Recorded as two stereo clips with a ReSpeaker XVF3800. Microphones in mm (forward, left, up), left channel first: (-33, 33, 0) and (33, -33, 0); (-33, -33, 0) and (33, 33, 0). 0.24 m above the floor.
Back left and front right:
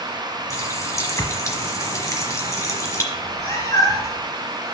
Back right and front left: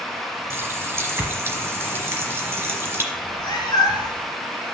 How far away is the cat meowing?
About 1.7 m.